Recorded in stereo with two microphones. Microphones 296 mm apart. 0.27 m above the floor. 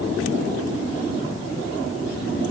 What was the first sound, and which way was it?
Only background noise.